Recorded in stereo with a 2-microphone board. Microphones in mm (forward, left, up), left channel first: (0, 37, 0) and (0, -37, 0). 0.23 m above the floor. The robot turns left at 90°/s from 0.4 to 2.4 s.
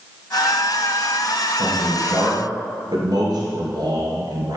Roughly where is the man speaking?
Ahead.